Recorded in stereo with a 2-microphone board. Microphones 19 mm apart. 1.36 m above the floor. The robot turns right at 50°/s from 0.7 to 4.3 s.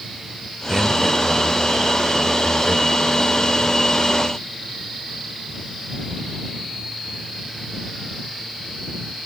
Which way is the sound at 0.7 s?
20° right.